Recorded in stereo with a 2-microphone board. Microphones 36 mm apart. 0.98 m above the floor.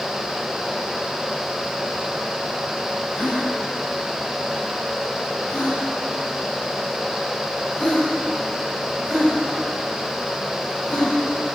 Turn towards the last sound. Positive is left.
turn(degrees=35)  # may be behind; listen again after turning